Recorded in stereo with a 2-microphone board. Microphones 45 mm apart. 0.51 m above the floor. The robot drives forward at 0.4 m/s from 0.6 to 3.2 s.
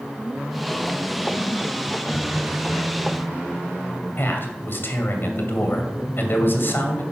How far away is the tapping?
About 3 m.